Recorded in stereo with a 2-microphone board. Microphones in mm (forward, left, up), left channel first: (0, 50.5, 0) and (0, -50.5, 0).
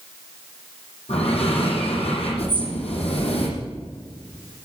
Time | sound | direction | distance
1.1 | breathing | 85° left | 9 m
2.5 | a bird | 55° right (ahead or behind) | 5.5 m